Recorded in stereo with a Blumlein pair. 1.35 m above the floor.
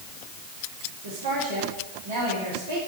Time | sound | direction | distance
1.0 | a woman speaking | 65° right | 3.5 m